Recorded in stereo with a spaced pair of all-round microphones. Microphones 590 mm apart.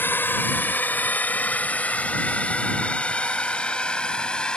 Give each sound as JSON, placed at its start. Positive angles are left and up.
{"t": 0.0, "sound": "a drone", "side_deg": 5}